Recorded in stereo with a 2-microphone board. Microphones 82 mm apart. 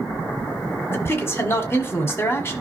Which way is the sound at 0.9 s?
30° left (ahead or behind).